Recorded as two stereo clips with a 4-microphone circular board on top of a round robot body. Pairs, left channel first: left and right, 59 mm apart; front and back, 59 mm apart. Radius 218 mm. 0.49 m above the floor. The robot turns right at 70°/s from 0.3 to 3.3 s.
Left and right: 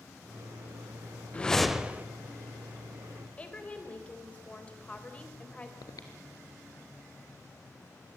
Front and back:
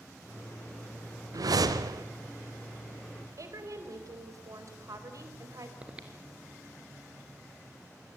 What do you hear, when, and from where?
1.3 s a whoosh: 160° left, 0.9 m; by 2.0 s 150° right, 0.9 m
3.4 s a woman speaking: 160° left, 4 m
5.8 s breathing: 105° left, 1.7 m